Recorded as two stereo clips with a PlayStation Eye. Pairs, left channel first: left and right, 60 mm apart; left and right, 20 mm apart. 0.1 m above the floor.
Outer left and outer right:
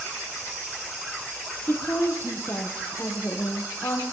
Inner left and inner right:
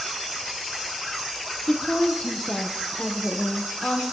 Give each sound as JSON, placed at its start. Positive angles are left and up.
{"t": 1.7, "sound": "a woman speaking", "side_deg": 40, "distance_m": 4.0}